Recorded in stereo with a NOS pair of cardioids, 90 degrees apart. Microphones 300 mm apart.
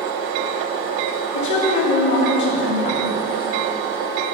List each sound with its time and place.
1.3 s a woman speaking: 65° left, 3 m